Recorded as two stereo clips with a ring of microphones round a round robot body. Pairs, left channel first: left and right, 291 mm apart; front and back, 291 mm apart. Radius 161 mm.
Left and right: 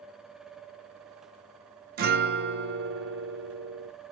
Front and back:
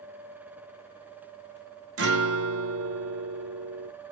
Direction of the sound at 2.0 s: 145° right.